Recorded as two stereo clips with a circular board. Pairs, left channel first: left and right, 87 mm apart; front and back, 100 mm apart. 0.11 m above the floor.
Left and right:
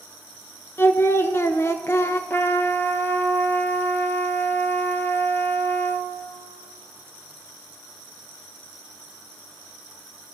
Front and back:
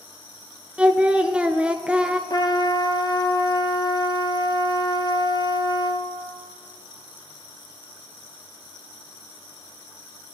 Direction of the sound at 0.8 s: 110° left.